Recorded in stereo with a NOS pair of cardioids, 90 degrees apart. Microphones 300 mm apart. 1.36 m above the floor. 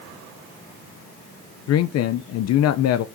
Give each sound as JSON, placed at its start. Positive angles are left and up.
{"t": 1.7, "sound": "a man speaking", "azimuth_deg": 55, "distance_m": 0.6}